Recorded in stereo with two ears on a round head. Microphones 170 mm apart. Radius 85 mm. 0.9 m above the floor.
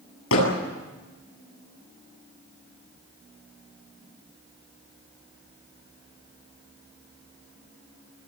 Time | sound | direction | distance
0.3 | hammering | 90° left | 9 m